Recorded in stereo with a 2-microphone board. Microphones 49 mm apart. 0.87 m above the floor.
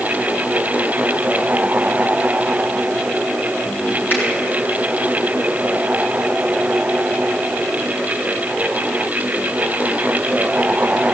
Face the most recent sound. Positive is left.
turn(degrees=40)  # may be behind; listen again after turning